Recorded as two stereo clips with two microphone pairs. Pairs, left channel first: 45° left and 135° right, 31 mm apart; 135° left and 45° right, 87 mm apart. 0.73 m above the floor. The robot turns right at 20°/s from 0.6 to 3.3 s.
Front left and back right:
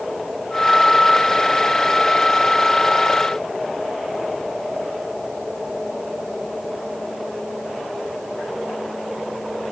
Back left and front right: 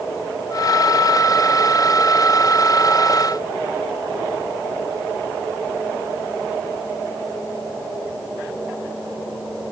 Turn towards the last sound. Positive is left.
No sound to turn to.